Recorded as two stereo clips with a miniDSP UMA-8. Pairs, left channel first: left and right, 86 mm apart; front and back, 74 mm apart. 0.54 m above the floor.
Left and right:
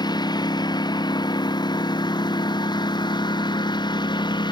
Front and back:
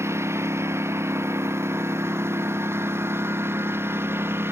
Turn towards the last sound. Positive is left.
turn(degrees=120)